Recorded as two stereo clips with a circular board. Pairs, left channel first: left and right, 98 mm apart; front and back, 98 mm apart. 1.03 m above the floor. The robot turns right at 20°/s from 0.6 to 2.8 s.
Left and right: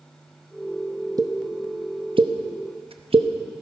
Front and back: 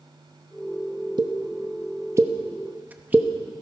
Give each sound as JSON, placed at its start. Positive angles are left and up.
{"t": 1.2, "sound": "a pop", "azimuth_deg": -140, "distance_m": 0.8}